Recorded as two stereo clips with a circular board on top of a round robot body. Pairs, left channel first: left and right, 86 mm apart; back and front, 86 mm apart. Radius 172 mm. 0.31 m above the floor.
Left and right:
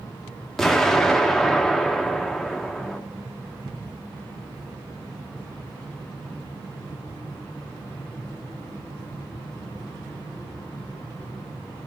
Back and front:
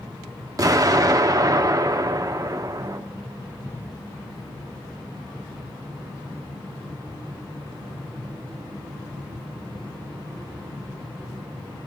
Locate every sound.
0.6 s an explosion: 10° left, 1.3 m